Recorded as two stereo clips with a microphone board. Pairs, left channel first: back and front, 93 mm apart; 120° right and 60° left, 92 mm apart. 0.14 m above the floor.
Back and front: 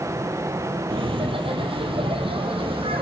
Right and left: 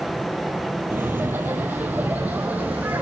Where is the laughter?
5° right, 4.5 m; by 3.0 s 15° right, 7.5 m.